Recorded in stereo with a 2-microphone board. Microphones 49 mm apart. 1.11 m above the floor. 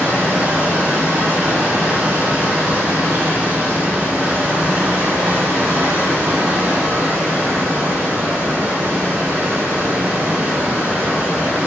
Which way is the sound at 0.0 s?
50° right (ahead or behind).